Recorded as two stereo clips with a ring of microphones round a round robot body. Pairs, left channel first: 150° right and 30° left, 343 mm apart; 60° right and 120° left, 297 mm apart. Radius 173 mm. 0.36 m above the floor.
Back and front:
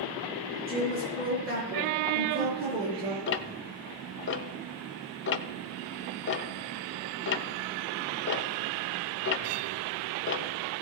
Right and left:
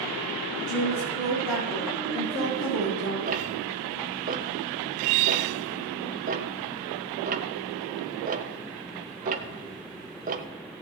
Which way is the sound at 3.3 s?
170° left.